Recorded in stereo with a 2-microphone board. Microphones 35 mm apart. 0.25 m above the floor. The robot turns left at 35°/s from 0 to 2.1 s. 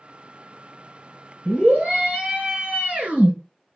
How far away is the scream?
About 3 m.